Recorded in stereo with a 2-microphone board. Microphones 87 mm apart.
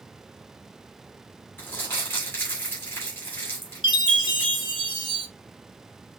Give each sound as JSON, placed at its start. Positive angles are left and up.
{"t": 1.6, "sound": "crumpling", "side_deg": 25, "distance_m": 2.5}
{"t": 3.8, "sound": "a chime", "side_deg": 65, "distance_m": 0.9}